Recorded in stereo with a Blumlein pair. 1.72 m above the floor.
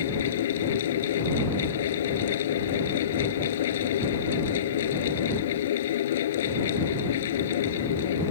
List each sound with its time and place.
0.0 s a fan: 60° left